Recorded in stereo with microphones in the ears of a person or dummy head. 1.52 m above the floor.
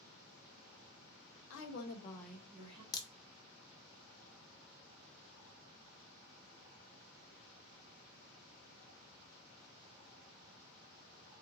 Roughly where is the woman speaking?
Left.